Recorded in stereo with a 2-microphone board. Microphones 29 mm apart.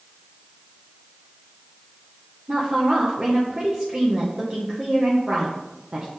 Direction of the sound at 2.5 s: 30° right (ahead or behind).